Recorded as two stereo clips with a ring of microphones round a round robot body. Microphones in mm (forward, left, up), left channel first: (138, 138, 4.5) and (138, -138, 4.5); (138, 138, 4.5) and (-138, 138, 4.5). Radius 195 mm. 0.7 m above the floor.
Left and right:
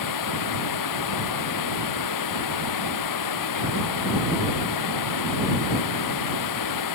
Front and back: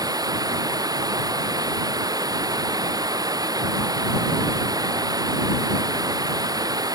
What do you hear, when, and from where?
0.0 s running water: 105° left